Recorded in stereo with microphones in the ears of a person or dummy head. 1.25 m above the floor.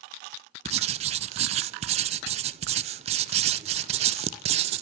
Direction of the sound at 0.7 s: 35° right (ahead or behind).